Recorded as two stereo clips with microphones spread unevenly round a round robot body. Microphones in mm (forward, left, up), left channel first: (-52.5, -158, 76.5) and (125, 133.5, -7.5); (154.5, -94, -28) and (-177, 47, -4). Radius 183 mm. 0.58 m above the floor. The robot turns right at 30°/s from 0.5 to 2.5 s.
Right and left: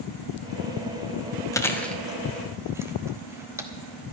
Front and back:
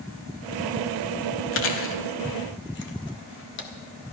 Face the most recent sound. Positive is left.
turn(degrees=5)